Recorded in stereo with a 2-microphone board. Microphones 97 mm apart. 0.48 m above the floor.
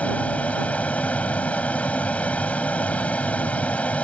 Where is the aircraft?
15° left (ahead or behind).